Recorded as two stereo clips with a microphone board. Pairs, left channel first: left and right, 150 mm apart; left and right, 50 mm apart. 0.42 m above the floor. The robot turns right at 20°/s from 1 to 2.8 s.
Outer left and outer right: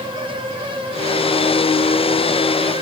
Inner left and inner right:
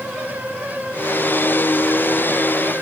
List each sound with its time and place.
Only background noise.